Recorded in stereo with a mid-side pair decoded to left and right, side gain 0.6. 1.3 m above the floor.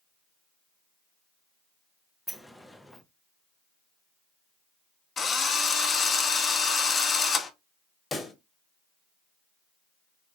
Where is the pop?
20° left, 1.1 m.